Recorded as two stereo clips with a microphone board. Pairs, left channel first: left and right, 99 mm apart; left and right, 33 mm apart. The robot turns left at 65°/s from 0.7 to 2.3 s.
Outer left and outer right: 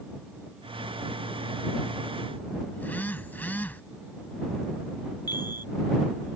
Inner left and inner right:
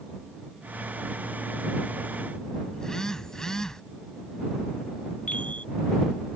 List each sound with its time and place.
2.7 s a phone buzzing: 20° left (ahead or behind)
5.3 s a chime: 40° left (ahead or behind)